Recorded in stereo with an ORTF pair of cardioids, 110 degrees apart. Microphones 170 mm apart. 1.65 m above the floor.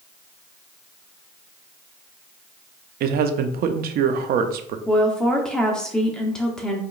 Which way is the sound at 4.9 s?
5° left.